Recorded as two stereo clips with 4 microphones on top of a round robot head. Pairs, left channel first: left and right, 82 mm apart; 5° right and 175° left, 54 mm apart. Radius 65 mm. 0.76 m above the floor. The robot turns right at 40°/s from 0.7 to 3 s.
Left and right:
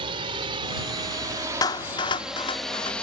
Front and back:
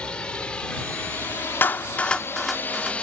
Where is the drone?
80° right; by 3.0 s 30° left.